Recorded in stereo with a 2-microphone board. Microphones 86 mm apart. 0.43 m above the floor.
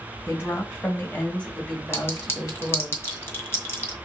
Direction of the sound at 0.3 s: 25° left (ahead or behind).